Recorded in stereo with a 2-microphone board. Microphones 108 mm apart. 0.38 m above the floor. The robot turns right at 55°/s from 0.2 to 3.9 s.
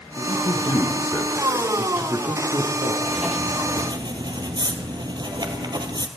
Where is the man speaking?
105° left, 4 m; by 2.9 s 105° right, 4 m.